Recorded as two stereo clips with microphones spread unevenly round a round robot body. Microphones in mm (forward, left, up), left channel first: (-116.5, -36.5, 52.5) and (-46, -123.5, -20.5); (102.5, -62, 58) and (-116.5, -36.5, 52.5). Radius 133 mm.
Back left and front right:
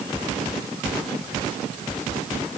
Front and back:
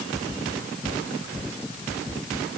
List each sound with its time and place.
Only background noise.